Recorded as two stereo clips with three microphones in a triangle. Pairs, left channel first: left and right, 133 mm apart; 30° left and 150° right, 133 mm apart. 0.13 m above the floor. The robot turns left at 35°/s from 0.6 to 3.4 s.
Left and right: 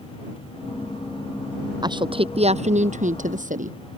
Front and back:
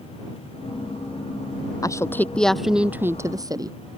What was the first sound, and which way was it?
A woman speaking, 35° right.